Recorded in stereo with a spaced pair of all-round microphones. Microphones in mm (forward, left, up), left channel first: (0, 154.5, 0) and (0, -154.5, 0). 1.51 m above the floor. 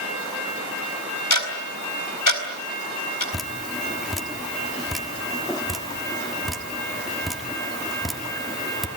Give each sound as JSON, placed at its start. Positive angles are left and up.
{"t": 1.3, "sound": "ticking", "side_deg": 75, "distance_m": 4.0}
{"t": 3.3, "sound": "dripping", "side_deg": 0, "distance_m": 1.5}